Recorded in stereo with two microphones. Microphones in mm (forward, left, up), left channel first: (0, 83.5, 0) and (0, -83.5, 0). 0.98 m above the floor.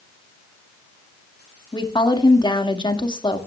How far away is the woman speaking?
About 1.9 m.